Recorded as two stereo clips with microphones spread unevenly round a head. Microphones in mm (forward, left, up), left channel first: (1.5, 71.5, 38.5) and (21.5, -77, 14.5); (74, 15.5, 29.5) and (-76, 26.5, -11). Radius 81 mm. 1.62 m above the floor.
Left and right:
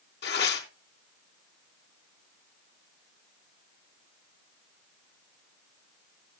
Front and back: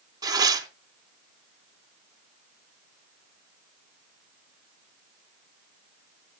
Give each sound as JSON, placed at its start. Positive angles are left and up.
{"t": 0.2, "sound": "tearing paper", "azimuth_deg": 105, "distance_m": 3.0}